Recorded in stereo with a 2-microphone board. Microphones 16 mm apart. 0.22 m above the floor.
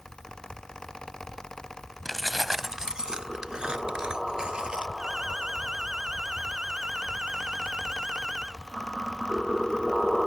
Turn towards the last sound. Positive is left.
turn(degrees=-60)  # may be behind; listen again after turning